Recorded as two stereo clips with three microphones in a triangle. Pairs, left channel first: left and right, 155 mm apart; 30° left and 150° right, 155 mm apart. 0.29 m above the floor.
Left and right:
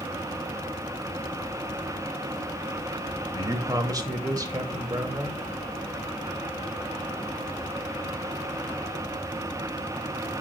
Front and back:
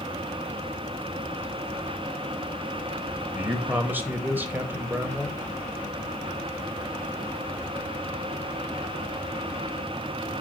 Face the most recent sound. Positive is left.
turn(degrees=-90)